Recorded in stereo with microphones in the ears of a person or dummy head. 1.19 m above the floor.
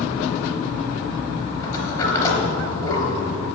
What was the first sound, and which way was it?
A sliding door, 20° left (ahead or behind).